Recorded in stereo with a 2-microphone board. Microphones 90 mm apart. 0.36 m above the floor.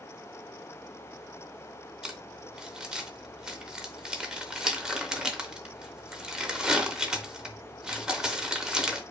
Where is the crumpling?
10° right (ahead or behind), 0.6 m.